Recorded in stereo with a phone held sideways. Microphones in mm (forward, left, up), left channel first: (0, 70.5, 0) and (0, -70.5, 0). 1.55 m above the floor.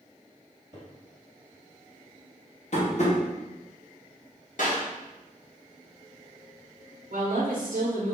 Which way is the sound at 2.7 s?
55° left (ahead or behind).